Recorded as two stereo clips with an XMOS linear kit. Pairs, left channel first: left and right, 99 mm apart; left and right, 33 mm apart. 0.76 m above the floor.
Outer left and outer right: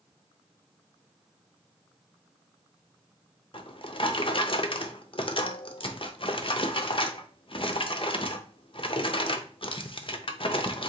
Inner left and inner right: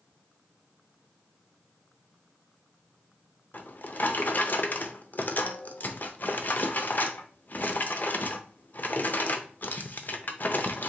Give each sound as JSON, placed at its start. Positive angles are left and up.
{"t": 3.5, "sound": "a drawer", "side_deg": 60, "distance_m": 0.6}